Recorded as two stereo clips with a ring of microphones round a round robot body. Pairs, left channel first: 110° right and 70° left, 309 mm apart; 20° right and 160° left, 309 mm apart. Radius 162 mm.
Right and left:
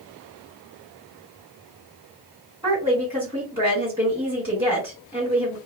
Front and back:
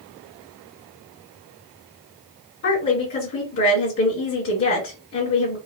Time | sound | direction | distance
2.6 | a woman speaking | 10° right | 1.8 m